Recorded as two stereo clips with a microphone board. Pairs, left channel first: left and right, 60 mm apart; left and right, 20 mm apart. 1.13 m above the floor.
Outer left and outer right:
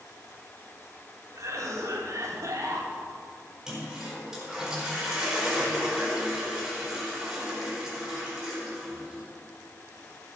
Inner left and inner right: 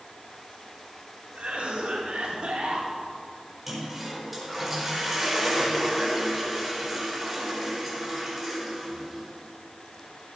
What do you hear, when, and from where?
1.4 s a cough: 65° right (ahead or behind), 2.5 m
3.7 s a toilet flushing: 10° right (ahead or behind), 4 m